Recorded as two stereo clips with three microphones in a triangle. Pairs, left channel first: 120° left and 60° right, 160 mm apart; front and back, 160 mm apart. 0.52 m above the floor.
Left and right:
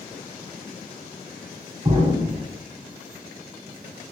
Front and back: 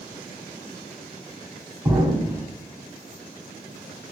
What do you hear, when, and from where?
1.9 s an explosion: 110° right, 0.7 m